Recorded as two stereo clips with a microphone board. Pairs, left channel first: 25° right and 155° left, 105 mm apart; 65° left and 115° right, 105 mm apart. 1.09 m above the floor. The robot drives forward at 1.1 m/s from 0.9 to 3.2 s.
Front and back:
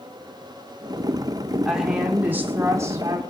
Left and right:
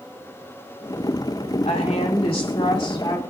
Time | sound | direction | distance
1.6 | a woman speaking | 70° left | 3 m